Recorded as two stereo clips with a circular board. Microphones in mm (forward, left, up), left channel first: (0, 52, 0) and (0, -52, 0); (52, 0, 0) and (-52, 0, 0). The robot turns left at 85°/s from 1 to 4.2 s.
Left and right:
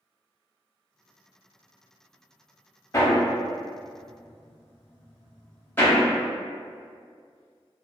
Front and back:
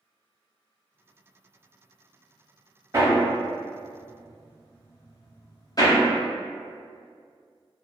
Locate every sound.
2.9 s hammering: 135° left, 0.6 m; by 6.0 s 30° left, 0.6 m